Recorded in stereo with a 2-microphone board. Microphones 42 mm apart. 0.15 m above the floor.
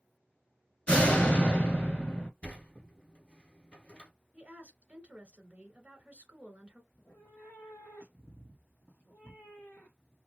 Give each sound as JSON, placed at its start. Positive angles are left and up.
{"t": 0.9, "sound": "a door slam", "side_deg": 25, "distance_m": 1.5}
{"t": 2.4, "sound": "a sliding door", "side_deg": 30, "distance_m": 1.1}
{"t": 4.3, "sound": "a woman speaking", "side_deg": -30, "distance_m": 1.4}
{"t": 6.9, "sound": "a cat meowing", "side_deg": 55, "distance_m": 0.9}